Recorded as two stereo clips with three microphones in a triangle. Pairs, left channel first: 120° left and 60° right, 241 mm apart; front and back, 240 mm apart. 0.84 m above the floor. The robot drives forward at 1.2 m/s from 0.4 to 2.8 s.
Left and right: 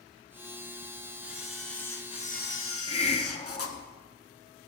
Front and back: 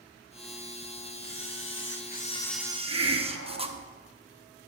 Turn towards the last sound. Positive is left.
turn(degrees=-175)